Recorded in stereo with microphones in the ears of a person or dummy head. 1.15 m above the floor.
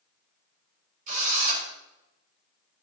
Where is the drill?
45° right (ahead or behind), 4 m.